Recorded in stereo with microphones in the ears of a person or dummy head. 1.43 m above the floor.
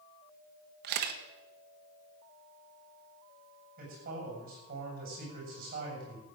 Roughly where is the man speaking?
Right.